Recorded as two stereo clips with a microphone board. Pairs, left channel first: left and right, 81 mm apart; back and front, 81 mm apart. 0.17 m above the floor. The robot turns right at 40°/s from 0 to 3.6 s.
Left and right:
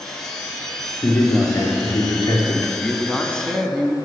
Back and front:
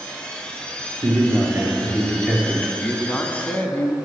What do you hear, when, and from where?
1.0 s a man speaking: 25° left, 3 m; by 2.7 s 95° left, 3 m
2.8 s a man speaking: 130° left, 1.3 m; by 4.0 s 165° left, 1.3 m